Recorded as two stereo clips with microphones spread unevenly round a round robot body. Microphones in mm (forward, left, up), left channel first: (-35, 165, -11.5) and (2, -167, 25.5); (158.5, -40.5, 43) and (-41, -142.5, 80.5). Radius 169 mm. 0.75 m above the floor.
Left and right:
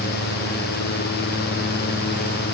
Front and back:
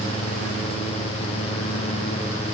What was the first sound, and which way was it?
Only background noise.